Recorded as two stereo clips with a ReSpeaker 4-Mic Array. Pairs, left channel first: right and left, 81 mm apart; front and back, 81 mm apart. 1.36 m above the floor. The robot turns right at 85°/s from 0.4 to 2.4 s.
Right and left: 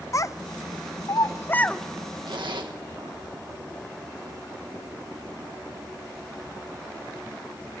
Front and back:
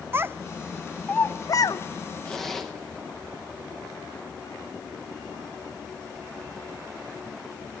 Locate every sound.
0.1 s a child speaking: 125° right, 0.5 m; by 1.8 s 5° right, 0.5 m
2.2 s a zipper: 75° left, 1.7 m; by 2.7 s 85° left, 1.7 m